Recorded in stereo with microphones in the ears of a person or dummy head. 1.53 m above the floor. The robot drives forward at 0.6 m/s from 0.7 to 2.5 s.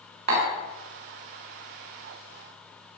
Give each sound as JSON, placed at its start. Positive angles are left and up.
{"t": 0.3, "sound": "tapping", "side_deg": -45, "distance_m": 2.0}